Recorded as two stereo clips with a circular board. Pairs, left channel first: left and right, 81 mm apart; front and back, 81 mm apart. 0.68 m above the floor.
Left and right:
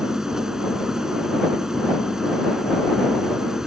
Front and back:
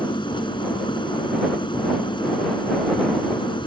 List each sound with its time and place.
0.0 s an engine running: 5° right